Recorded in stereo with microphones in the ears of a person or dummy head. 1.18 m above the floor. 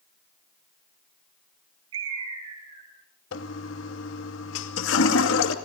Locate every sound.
1.9 s a bird: 85° right, 8.5 m
3.3 s a toilet flushing: 70° left (ahead or behind), 2.5 m